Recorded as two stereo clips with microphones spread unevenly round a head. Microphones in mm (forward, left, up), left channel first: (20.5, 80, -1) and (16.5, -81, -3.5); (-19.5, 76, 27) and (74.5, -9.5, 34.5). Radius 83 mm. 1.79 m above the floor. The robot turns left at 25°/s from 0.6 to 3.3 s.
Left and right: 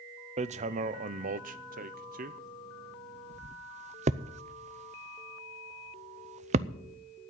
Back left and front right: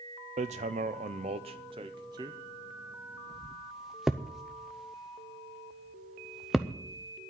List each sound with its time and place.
0.4 s hammering: 60° right, 0.6 m; by 6.7 s 125° right, 0.6 m